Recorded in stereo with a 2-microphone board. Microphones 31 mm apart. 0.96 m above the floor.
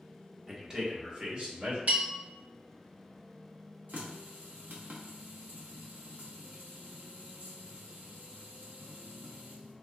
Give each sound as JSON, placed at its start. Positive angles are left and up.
{"t": 0.5, "sound": "a man speaking", "side_deg": -20, "distance_m": 0.9}
{"t": 1.9, "sound": "a bell", "side_deg": -70, "distance_m": 1.9}
{"t": 3.9, "sound": "a running tap", "side_deg": -80, "distance_m": 0.7}